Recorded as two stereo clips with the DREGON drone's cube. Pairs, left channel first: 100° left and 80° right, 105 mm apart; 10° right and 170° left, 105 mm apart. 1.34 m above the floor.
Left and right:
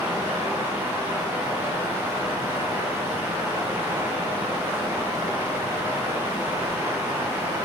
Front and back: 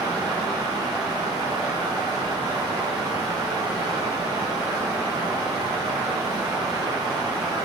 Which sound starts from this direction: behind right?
Running water, at 0.0 s.